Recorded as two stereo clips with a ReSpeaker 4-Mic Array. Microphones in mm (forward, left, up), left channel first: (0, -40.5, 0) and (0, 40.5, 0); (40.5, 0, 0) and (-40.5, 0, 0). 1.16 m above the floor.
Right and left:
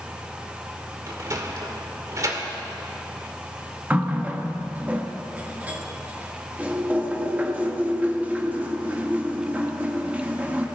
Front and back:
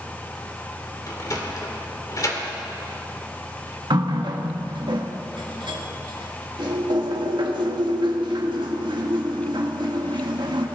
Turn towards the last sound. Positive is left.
turn(degrees=160)